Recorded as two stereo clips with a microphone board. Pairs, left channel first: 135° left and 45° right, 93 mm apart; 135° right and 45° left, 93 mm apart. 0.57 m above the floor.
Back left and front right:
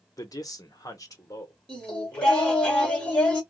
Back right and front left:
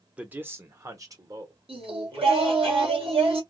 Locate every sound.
0.2 s a man speaking: 115° left, 0.8 m; by 2.7 s 80° left, 1.9 m
1.7 s singing: 55° left, 2 m